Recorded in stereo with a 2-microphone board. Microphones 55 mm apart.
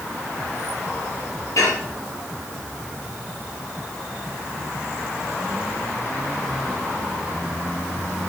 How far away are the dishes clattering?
About 8.5 m.